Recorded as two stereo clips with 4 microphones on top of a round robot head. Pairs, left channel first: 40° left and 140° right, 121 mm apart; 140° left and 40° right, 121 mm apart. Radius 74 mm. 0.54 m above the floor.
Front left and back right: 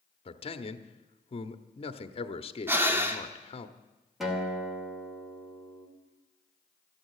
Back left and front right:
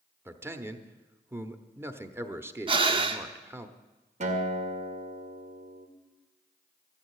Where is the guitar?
50° right, 2 m.